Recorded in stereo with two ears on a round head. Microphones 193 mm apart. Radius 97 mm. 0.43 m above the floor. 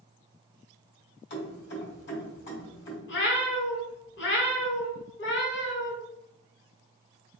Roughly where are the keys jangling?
Left.